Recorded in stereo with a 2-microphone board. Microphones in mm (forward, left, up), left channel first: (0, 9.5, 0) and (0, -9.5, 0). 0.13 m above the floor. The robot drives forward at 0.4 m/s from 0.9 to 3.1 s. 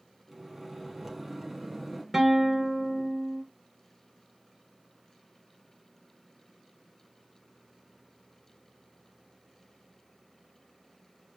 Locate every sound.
0.3 s a microwave: 5° right (ahead or behind), 2.5 m
2.1 s a guitar: 10° right (ahead or behind), 1.7 m